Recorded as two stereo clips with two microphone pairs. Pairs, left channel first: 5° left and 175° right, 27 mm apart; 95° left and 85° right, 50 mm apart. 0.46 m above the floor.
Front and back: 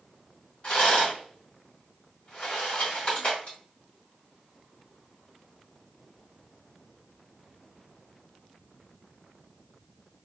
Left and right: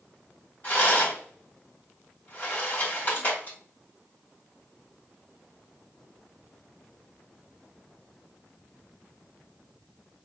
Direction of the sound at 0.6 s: 45° left.